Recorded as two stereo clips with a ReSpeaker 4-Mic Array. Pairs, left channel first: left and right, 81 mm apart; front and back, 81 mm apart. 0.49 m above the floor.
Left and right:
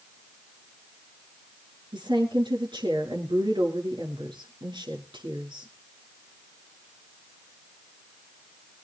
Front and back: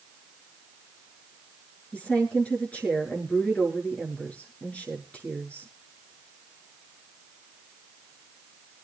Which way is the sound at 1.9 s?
75° right.